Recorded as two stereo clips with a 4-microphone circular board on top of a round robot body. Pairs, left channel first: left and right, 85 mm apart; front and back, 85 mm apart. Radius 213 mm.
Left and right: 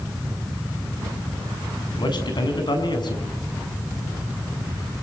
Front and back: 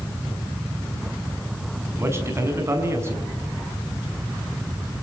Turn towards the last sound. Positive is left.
turn(degrees=120)